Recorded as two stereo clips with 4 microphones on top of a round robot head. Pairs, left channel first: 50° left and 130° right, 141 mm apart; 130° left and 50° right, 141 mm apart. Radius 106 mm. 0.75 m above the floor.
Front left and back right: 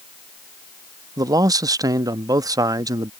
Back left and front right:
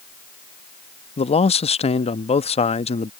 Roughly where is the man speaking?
Behind.